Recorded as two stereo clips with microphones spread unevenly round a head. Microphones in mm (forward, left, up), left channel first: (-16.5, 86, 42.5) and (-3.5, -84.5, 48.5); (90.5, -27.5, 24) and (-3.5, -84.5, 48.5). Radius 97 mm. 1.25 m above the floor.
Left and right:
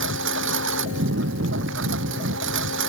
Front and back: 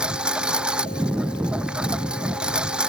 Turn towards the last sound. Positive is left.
turn(degrees=-70)